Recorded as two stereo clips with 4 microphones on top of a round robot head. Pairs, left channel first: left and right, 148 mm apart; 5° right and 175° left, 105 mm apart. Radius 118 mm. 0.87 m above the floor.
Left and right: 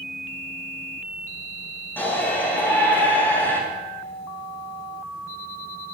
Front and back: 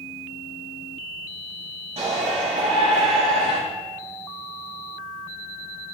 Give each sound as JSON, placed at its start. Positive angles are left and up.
{"t": 2.0, "sound": "a shout", "azimuth_deg": 165, "distance_m": 8.0}